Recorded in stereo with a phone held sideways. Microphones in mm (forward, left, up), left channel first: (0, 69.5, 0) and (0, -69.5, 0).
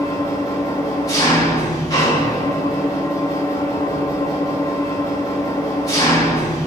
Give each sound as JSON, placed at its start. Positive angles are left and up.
{"t": 0.0, "sound": "an engine running", "side_deg": 25, "distance_m": 2.5}